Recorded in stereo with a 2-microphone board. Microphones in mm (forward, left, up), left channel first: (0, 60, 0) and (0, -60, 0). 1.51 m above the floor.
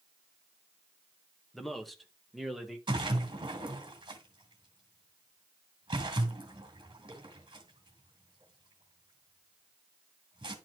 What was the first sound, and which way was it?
A man speaking, centre (ahead or behind).